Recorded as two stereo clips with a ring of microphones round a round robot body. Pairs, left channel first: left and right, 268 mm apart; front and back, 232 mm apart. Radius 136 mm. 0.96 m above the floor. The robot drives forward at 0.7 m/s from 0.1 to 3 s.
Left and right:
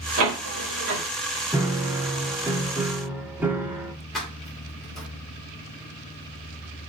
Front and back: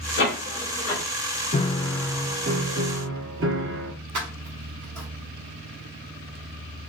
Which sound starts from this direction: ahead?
A piano, at 1.5 s.